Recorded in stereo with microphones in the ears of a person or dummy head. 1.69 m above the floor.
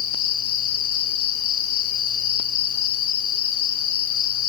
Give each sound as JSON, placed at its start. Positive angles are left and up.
{"t": 0.0, "sound": "an insect", "side_deg": 55, "distance_m": 1.5}